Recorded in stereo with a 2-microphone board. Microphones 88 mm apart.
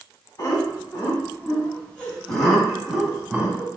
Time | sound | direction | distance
0.4 | laughter | 35° left (ahead or behind) | 1.7 m